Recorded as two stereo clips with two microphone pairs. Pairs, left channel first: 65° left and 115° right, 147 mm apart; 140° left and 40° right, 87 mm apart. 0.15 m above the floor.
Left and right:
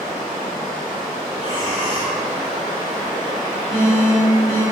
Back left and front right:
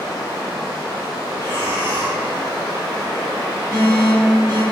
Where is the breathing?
160° right, 1.8 m.